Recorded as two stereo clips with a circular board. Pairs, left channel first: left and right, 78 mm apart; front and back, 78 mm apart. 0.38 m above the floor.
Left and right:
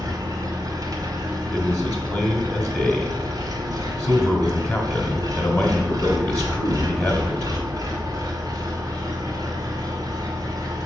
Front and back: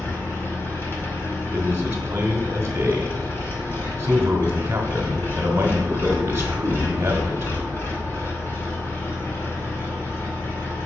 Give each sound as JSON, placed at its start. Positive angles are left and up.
{"t": 0.0, "sound": "an engine running", "azimuth_deg": -55, "distance_m": 1.5}
{"t": 1.5, "sound": "a man speaking", "azimuth_deg": 150, "distance_m": 1.2}